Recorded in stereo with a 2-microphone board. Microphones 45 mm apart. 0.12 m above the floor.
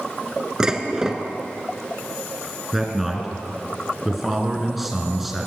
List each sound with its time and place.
0.6 s dishes clattering: 15° right (ahead or behind), 1.2 m
2.7 s a man speaking: 5° right (ahead or behind), 1.8 m